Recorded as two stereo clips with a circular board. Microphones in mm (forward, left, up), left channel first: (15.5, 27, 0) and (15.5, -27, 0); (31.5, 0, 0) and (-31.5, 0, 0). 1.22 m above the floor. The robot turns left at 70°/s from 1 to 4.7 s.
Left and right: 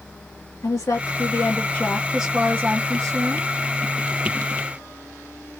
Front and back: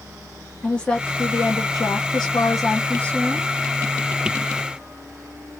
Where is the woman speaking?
75° left, 1.7 m; by 3.5 s 100° right, 1.7 m.